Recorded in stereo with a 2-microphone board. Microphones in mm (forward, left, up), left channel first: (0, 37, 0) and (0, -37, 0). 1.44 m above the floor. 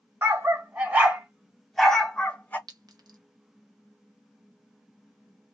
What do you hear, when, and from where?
0.2 s a dog barking: 35° right (ahead or behind), 1.5 m; by 2.6 s 20° left (ahead or behind), 1.3 m
2.7 s a clink: 60° right (ahead or behind), 0.8 m